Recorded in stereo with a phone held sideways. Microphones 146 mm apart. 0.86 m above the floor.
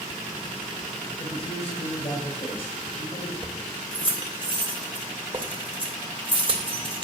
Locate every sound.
1.2 s a man speaking: 40° left (ahead or behind), 5 m
3.4 s keys jangling: 35° right (ahead or behind), 2.5 m